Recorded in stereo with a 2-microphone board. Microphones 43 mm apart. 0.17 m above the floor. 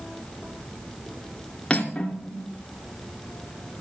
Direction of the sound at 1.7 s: 20° left (ahead or behind).